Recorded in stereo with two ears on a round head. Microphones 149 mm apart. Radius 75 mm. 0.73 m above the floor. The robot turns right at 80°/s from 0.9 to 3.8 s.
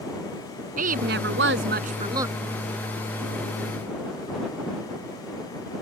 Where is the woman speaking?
125° right; by 2.4 s 10° right.